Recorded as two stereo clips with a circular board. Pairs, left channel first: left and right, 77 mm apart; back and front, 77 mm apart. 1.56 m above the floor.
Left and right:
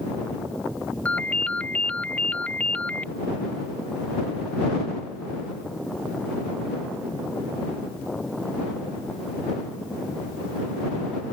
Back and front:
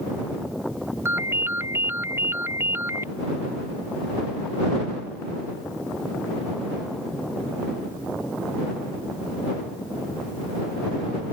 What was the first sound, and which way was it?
A ringtone, 30° left.